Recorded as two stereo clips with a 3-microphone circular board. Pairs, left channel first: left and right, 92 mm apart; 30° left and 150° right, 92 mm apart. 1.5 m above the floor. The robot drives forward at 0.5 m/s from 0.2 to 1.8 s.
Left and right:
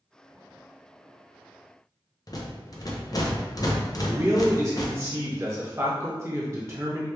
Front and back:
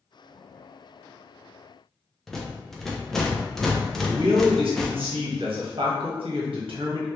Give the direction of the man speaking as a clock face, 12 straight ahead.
5 o'clock.